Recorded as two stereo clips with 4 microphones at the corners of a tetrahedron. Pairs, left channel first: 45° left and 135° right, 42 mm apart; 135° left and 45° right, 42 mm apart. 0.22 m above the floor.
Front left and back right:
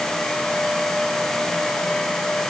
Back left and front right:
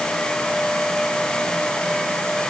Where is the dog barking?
No dog barking in this recording.